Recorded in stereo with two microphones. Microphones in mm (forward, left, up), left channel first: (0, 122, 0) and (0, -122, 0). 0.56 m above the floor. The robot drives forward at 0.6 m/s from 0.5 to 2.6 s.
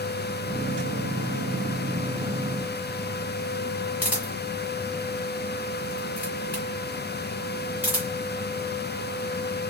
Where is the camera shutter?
5° right (ahead or behind), 2.5 m.